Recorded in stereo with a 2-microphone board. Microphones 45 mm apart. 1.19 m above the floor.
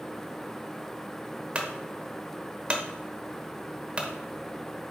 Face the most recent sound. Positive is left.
turn(degrees=-25)  # may be behind; listen again after turning